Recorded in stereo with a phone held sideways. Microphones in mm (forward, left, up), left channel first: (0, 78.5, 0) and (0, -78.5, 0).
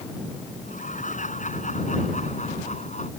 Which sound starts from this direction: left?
Laughter, at 0.6 s.